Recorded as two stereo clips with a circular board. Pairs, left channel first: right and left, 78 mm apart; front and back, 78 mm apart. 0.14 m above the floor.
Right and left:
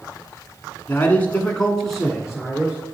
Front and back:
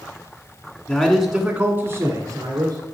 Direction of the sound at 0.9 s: 65° right.